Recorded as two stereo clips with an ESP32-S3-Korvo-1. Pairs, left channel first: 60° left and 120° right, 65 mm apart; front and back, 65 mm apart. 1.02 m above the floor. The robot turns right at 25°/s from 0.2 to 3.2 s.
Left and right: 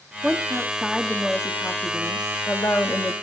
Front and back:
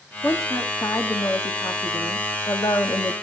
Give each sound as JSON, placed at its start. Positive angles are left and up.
{"t": 0.2, "sound": "a woman speaking", "azimuth_deg": -50, "distance_m": 1.4}